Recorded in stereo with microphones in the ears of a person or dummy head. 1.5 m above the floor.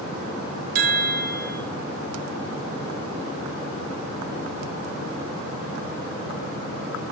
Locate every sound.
0.8 s a chime: 55° right (ahead or behind), 1.2 m